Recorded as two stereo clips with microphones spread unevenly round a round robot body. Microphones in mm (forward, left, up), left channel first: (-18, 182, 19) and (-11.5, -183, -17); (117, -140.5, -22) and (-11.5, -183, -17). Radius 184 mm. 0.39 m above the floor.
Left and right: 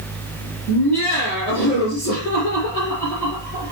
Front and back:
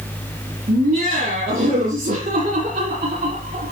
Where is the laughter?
170° left, 6 m.